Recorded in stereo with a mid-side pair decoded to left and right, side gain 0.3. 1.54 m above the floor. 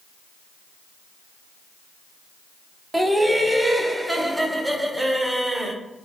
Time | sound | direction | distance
2.9 | laughter | 20° right | 0.8 m